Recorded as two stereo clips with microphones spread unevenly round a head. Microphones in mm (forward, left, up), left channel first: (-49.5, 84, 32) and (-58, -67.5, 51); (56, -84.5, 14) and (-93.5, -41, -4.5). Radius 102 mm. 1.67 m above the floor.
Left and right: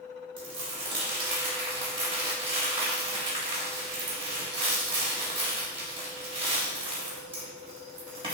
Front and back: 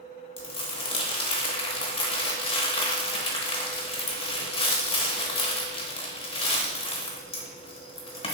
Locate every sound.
0.4 s crumpling: 45° right, 0.8 m